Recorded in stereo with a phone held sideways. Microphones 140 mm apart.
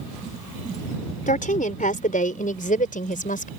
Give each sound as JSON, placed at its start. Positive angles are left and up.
{"t": 1.3, "sound": "a woman speaking", "side_deg": 70}